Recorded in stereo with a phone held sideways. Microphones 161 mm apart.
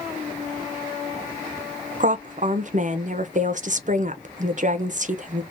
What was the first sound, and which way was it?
A woman speaking, 50° right (ahead or behind).